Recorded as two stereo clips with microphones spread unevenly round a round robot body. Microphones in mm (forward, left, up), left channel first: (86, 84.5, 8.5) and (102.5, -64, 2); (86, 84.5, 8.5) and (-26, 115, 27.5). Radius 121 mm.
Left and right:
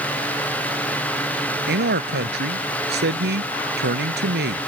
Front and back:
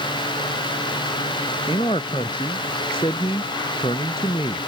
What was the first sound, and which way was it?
A man speaking, 85° right.